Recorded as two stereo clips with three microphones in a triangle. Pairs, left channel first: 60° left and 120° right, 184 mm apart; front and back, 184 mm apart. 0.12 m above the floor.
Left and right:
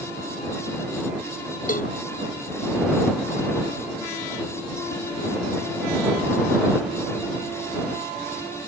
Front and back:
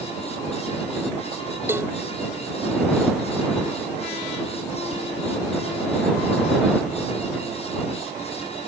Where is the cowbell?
100° left.